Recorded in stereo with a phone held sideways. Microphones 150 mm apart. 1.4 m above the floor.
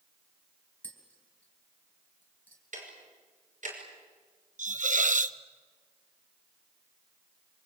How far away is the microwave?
No microwave in this recording.